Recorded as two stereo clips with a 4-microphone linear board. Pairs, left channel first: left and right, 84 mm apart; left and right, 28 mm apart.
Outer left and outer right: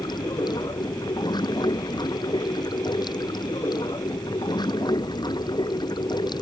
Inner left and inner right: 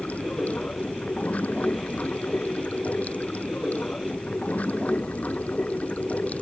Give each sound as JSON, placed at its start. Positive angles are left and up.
{"t": 0.0, "sound": "running water", "side_deg": 60}